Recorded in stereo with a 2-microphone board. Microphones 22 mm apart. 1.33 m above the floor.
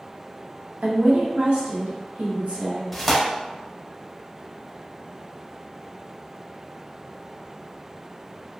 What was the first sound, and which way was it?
A woman speaking, 75° right (ahead or behind).